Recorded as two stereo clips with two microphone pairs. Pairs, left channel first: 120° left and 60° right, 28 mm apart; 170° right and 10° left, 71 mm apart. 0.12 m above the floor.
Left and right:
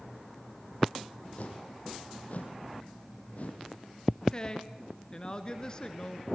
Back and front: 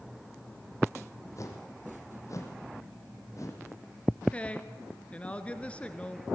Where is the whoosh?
150° left, 3 m.